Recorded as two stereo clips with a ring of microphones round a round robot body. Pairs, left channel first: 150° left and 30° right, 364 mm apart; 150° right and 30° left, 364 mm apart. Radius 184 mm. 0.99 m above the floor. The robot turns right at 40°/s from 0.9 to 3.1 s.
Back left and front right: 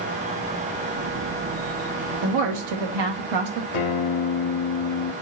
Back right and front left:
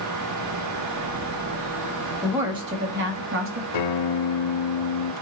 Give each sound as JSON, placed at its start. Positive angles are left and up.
{"t": 2.2, "sound": "a woman speaking", "azimuth_deg": -60, "distance_m": 1.6}
{"t": 3.7, "sound": "a guitar", "azimuth_deg": -175, "distance_m": 1.0}